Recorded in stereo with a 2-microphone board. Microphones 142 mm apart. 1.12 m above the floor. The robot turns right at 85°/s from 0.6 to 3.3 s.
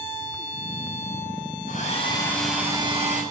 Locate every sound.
1.7 s a hair dryer: 115° left, 6.5 m; by 3.2 s 115° right, 6.5 m